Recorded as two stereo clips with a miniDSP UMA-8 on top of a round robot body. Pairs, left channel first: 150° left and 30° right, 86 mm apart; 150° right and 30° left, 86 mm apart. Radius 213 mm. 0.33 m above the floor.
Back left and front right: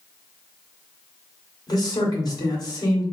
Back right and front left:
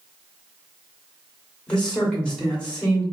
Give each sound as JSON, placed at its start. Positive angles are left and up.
{"t": 1.7, "sound": "a man speaking", "azimuth_deg": 135, "distance_m": 1.9}